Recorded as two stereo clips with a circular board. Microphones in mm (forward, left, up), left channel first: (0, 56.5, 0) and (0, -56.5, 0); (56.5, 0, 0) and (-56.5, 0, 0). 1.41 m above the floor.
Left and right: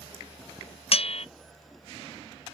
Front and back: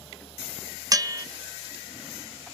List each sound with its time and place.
0.9 s a bell: 120° left, 0.6 m